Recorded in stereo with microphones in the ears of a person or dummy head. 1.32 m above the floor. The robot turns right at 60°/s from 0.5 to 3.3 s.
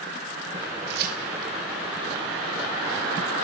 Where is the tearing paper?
60° right (ahead or behind), 1.1 m; by 1.5 s 25° right (ahead or behind), 1.1 m.